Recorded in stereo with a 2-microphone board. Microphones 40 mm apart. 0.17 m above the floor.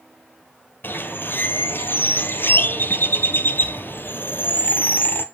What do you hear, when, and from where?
0.8 s a bird: 55° left (ahead or behind), 1.5 m